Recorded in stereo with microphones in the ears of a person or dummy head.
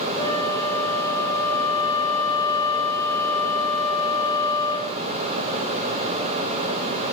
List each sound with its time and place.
0.2 s a flute: 15° left (ahead or behind), 5.5 m